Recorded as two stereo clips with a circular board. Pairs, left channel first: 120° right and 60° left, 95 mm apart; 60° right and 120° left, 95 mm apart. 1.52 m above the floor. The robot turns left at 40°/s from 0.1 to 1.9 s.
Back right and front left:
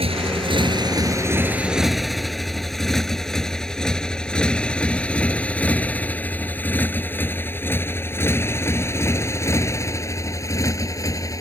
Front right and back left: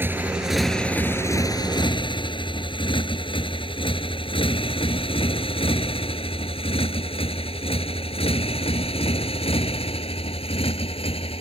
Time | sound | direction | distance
0.0 | a motorcycle | 50° left | ?